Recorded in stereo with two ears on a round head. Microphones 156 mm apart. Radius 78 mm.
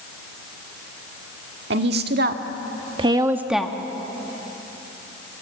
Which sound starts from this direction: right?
A woman speaking, at 1.7 s.